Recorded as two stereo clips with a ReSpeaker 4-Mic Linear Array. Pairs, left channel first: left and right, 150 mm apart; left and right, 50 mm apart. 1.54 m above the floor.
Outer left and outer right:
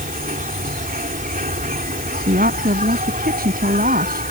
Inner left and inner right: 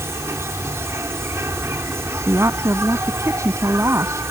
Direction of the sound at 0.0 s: 70° right (ahead or behind).